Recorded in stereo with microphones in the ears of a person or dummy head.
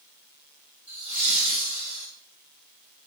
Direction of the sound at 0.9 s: 45° left (ahead or behind).